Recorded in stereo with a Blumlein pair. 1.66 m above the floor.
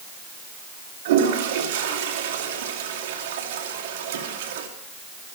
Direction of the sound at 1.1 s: 55° right.